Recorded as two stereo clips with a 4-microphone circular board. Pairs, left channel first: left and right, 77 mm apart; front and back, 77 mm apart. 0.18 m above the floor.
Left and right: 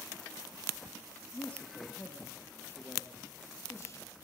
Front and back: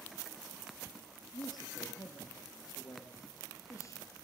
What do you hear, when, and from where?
1.3 s a man speaking: 15° left, 5 m; by 4.2 s 45° left, 4.5 m